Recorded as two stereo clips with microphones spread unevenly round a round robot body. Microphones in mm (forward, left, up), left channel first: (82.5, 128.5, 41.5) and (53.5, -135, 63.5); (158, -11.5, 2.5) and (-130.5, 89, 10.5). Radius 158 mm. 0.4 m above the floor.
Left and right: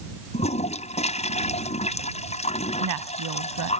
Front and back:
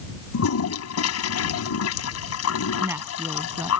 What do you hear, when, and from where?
0.3 s a toilet flushing: 20° left
2.8 s a woman speaking: 115° right